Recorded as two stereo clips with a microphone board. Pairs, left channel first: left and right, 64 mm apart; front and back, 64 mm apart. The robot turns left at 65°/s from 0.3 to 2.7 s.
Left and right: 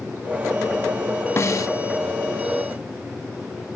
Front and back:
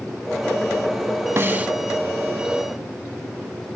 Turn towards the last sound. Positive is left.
turn(degrees=45)